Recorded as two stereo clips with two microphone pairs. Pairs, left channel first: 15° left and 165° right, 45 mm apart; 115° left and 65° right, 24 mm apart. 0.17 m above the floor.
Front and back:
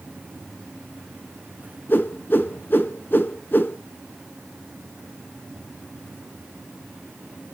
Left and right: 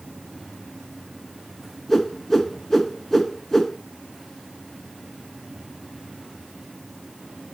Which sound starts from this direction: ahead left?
A whoosh, at 1.9 s.